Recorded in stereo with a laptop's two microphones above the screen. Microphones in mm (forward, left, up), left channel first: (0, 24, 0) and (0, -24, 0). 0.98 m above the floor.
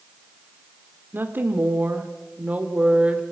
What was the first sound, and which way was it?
A woman speaking, 50° right (ahead or behind).